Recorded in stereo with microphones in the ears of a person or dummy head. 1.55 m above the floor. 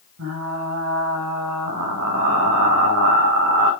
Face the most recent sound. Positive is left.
turn(degrees=-75)  # may be behind; listen again after turning